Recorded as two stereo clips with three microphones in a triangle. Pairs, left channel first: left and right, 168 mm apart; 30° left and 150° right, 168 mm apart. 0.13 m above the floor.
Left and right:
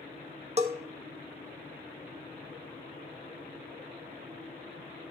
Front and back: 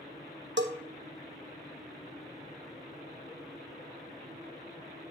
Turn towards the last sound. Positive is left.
turn(degrees=-145)